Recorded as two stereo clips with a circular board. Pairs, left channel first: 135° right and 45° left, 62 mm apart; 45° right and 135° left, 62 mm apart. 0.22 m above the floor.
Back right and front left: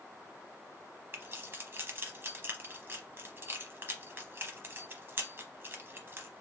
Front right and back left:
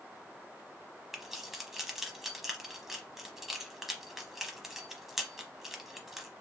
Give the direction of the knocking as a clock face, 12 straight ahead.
I don't hear knocking.